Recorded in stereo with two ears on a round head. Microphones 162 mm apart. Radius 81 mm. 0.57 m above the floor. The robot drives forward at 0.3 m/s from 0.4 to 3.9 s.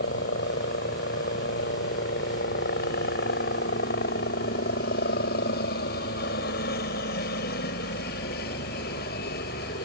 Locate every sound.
0.0 s a helicopter: 60° left (ahead or behind)